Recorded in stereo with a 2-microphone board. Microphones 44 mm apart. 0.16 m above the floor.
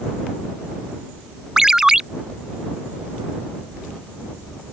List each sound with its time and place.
1.6 s a ringtone: 15° right (ahead or behind)